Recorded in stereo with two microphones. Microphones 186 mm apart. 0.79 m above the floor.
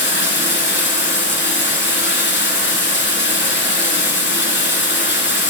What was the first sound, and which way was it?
Running water, 75° left (ahead or behind).